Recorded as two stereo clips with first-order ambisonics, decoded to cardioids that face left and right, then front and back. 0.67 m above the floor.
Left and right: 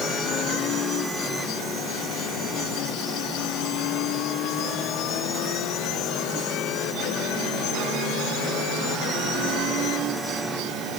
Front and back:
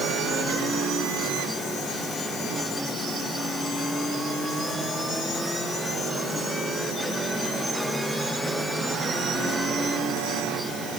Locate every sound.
Only background noise.